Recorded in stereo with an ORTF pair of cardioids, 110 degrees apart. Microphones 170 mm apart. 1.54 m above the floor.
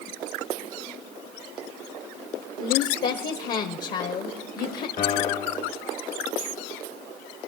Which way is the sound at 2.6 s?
60° left.